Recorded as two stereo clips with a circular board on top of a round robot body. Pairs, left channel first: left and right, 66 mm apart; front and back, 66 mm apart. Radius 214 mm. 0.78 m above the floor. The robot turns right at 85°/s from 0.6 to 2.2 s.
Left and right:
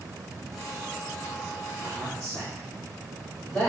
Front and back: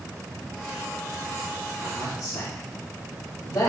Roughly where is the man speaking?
Ahead.